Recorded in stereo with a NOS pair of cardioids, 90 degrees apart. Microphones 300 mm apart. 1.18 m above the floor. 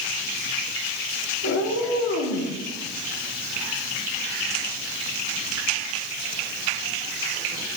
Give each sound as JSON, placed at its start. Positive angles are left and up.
{"t": 1.4, "sound": "a cat meowing", "azimuth_deg": 60, "distance_m": 1.3}